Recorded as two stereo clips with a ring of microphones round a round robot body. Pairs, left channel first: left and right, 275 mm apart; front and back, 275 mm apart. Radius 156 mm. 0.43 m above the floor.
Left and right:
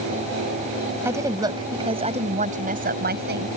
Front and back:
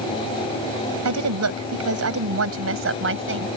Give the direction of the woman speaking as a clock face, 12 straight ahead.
6 o'clock.